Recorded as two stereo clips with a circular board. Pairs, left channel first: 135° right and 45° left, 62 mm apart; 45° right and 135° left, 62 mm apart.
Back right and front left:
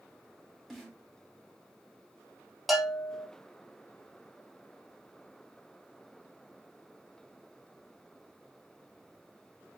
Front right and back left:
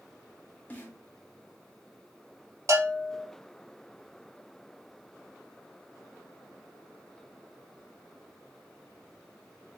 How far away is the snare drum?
About 1.4 m.